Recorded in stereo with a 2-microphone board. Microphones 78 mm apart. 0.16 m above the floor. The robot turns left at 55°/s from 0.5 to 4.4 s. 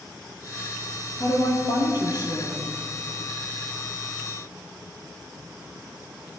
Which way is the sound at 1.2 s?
120° left.